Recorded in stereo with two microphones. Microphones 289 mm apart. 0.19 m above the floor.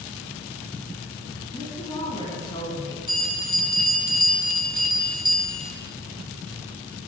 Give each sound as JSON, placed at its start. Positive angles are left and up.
{"t": 1.5, "sound": "a woman speaking", "side_deg": 15, "distance_m": 1.4}
{"t": 3.1, "sound": "a bell", "side_deg": -90, "distance_m": 1.2}